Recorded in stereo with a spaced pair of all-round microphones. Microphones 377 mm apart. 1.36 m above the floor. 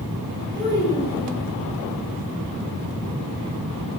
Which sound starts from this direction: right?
A child speaking, at 0.6 s.